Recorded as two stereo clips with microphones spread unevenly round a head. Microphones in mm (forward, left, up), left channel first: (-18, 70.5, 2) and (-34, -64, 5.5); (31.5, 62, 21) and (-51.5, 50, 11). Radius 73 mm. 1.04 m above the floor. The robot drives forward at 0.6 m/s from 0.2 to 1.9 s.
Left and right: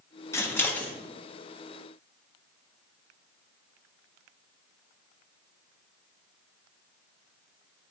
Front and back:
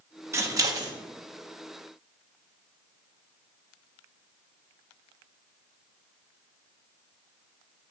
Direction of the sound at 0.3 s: 145° left.